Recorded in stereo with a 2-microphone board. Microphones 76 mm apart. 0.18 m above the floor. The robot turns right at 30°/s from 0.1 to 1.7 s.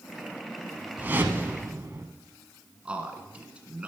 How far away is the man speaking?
About 1.9 m.